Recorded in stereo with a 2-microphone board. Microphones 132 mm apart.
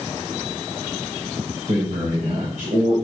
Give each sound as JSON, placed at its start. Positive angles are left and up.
{"t": 1.7, "sound": "a man speaking", "side_deg": -70, "distance_m": 3.0}